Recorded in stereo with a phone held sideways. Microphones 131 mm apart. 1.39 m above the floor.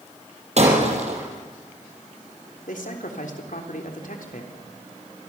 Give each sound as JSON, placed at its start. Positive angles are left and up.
{"t": 0.6, "sound": "breaking glass", "side_deg": -55, "distance_m": 6.0}
{"t": 2.7, "sound": "a man speaking", "side_deg": 75, "distance_m": 3.5}